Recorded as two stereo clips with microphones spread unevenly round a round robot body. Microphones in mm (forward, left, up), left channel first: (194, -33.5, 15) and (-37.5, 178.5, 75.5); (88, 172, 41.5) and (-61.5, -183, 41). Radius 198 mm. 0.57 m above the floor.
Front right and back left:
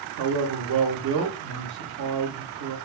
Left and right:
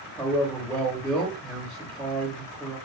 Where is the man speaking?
150° left, 0.7 m.